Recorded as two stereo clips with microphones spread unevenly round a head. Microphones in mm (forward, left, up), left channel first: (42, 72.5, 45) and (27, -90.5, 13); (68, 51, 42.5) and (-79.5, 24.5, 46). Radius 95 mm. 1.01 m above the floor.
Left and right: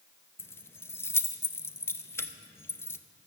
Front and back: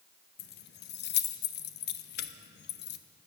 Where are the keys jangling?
5° left, 0.7 m.